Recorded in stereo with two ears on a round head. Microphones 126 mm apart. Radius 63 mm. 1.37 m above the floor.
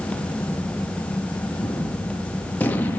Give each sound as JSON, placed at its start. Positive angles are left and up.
{"t": 1.6, "sound": "a gunshot", "side_deg": 15, "distance_m": 0.9}